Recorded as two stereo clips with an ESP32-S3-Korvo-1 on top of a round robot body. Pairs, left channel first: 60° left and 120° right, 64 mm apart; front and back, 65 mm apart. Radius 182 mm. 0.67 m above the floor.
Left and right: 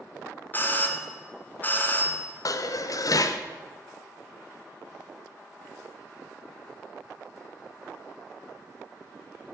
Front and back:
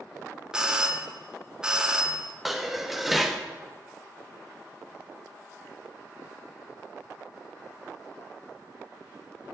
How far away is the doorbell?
About 1.1 m.